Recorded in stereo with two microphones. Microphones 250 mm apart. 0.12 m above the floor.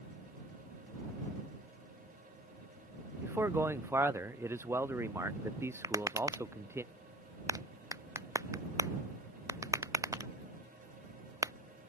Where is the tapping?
15° right (ahead or behind).